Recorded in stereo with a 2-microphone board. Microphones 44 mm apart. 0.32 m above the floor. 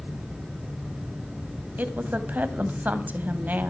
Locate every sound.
1.8 s a woman speaking: 40° right (ahead or behind), 1.8 m